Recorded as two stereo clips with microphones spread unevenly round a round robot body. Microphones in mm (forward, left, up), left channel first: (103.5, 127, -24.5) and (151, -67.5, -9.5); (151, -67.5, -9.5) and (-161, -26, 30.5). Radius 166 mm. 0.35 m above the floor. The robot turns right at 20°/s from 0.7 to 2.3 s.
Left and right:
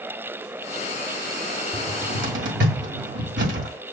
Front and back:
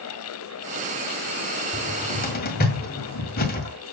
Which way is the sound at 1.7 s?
70° right.